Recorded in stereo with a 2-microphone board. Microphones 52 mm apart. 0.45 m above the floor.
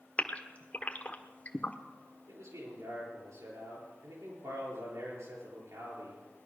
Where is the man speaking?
80° right, 8 m.